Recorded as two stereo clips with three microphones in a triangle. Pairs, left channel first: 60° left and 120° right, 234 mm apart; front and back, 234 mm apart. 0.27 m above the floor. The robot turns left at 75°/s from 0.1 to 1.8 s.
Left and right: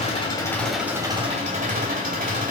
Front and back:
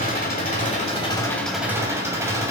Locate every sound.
0.0 s an engine running: 15° left, 1.3 m; by 2.5 s 110° right, 1.3 m